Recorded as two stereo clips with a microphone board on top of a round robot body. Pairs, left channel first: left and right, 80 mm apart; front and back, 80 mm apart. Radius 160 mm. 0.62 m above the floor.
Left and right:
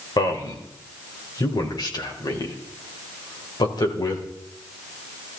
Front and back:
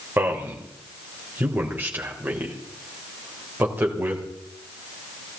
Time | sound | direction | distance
0.2 | a man speaking | 115° left | 4 m